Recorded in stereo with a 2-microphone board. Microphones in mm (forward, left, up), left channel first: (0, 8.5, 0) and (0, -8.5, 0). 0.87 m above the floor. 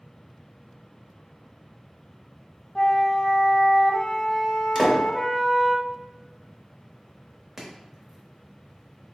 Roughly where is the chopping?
Centre.